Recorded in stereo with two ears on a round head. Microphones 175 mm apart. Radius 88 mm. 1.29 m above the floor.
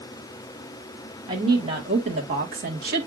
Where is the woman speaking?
20° right (ahead or behind), 1.9 m; by 3.1 s 55° right (ahead or behind), 1.4 m.